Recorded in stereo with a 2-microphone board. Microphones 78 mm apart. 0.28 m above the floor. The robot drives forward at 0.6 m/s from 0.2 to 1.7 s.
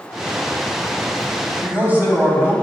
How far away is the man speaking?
About 1.7 m.